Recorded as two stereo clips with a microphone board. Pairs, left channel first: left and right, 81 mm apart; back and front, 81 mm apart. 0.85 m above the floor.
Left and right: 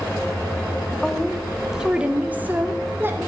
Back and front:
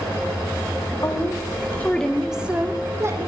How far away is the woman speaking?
About 1.1 m.